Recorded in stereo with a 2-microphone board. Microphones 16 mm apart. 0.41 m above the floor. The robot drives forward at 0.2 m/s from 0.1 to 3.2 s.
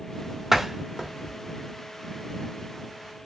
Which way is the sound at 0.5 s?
25° right (ahead or behind).